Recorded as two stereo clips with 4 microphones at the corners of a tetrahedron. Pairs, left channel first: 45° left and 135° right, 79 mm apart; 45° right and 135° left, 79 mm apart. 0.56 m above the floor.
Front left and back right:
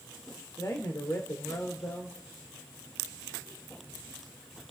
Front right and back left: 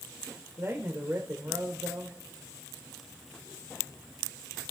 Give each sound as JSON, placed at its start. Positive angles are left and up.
{"t": 0.6, "sound": "a man speaking", "azimuth_deg": 80, "distance_m": 1.4}